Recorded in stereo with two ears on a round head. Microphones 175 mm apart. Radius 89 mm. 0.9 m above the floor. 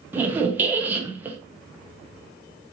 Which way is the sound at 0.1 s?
10° right (ahead or behind).